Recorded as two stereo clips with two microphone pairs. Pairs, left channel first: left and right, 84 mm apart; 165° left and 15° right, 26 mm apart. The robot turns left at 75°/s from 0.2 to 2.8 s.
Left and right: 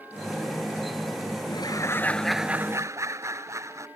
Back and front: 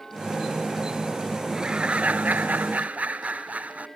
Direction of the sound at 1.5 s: 60° left.